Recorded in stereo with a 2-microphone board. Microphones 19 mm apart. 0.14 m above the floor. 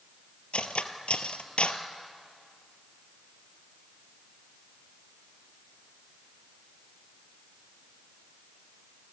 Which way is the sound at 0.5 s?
65° left (ahead or behind).